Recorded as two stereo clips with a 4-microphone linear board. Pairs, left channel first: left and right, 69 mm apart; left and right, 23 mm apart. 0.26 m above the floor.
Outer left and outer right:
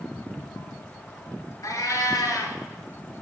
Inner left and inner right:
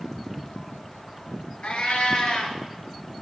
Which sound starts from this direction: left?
A cat meowing, at 1.6 s.